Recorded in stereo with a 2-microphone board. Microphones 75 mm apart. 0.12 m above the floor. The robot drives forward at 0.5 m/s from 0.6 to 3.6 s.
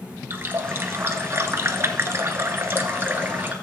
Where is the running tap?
30° right (ahead or behind), 1.1 m; by 3.5 s 25° right (ahead or behind), 1.3 m.